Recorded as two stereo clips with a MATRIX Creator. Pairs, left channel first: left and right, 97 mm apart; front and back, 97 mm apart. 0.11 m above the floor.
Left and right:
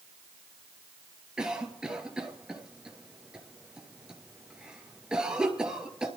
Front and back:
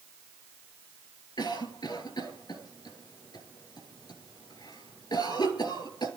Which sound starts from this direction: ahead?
A cough, at 1.4 s.